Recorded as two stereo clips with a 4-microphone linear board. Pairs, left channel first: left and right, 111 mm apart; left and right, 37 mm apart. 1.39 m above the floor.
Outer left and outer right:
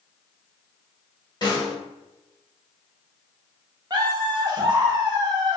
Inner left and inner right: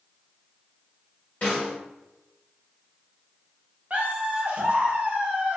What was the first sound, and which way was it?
A snare drum, 40° left (ahead or behind).